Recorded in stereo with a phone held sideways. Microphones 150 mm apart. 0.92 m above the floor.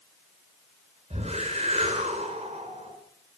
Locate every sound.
1.1 s a whoosh: 45° right (ahead or behind), 4 m